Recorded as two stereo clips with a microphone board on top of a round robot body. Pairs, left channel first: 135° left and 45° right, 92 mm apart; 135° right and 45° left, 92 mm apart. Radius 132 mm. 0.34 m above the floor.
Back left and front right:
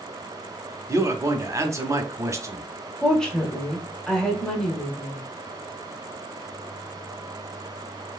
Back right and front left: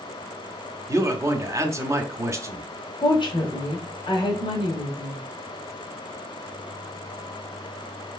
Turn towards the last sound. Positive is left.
turn(degrees=-145)